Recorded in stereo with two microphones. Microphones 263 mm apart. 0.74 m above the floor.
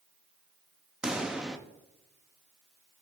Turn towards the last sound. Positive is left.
turn(degrees=-5)  # may be behind; listen again after turning